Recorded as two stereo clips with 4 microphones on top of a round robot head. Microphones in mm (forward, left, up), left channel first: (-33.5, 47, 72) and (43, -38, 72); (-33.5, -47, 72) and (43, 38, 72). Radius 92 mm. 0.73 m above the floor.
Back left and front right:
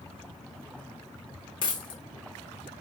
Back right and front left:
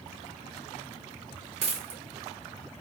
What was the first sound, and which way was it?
A dropped coin, 85° left.